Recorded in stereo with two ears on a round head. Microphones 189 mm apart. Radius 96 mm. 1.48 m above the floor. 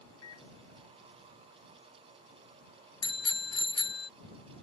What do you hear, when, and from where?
0.2 s a microwave: 85° left
3.0 s a bicycle bell: 25° left (ahead or behind)